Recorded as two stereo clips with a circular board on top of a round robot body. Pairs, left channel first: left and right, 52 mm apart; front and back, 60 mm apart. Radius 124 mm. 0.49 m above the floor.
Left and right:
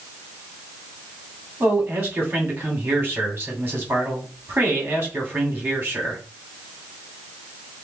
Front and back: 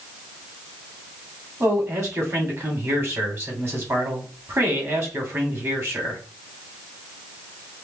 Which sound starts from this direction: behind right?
A man speaking, at 1.6 s.